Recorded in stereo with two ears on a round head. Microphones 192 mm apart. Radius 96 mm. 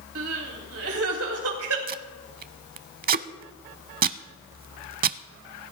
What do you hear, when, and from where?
0.1 s crying: 75° right (ahead or behind), 3.5 m
1.9 s tape being pulled: 45° right (ahead or behind), 0.6 m